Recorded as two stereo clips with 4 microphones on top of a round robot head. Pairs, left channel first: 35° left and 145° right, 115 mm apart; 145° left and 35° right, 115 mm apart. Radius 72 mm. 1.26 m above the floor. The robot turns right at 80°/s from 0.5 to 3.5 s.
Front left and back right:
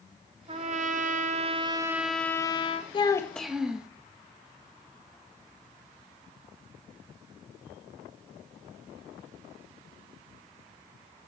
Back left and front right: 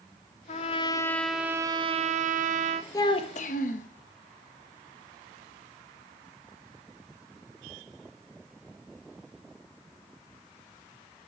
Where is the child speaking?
85° left, 1.0 m; by 3.9 s 130° left, 1.0 m.